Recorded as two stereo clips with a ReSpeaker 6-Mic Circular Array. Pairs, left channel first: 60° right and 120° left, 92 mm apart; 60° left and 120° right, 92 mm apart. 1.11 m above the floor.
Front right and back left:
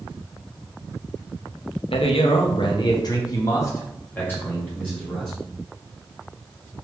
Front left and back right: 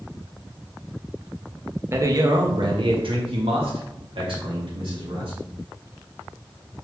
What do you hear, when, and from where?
1.9 s a man speaking: 60° right, 0.8 m; by 5.4 s 135° right, 2.0 m